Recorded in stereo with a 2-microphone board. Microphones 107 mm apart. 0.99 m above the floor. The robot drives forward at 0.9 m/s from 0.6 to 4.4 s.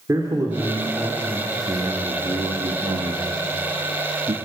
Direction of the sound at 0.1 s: 30° right (ahead or behind).